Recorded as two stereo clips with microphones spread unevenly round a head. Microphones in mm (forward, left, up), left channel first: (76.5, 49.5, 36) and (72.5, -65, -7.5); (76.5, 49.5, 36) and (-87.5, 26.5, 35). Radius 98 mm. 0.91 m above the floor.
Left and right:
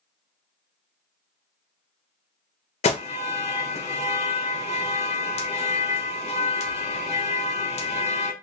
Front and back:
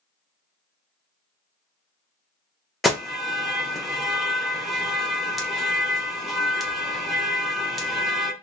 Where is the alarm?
100° left, 0.9 m.